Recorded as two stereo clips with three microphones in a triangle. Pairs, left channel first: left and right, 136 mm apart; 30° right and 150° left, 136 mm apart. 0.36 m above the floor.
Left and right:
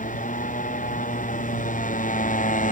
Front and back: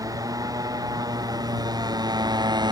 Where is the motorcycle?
85° left; by 2.7 s 95° left.